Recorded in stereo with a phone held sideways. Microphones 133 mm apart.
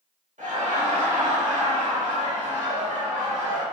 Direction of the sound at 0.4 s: 70° right (ahead or behind).